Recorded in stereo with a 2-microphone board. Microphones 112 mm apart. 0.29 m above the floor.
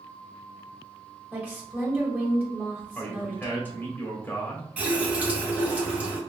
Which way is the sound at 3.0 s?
20° left (ahead or behind).